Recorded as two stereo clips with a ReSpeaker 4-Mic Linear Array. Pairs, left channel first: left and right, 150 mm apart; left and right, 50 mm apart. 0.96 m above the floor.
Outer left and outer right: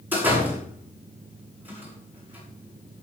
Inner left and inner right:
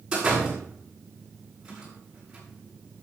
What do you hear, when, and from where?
0.1 s a door slam: 15° right (ahead or behind), 9 m